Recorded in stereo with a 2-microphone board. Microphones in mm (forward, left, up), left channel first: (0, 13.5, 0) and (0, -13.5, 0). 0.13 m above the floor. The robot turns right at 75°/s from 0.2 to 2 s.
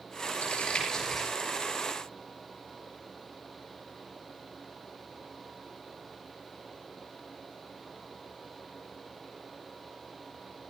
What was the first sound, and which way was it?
Crumpling, 65° left (ahead or behind).